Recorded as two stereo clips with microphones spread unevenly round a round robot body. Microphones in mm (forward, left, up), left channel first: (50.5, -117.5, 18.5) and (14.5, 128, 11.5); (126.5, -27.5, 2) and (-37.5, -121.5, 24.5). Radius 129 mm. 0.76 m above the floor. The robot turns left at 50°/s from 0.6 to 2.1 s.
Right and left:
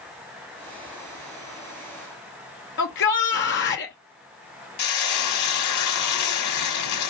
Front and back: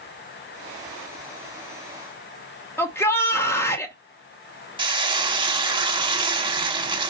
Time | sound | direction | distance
2.8 | a shout | 45° right | 0.8 m
4.8 | frying | 90° right | 1.2 m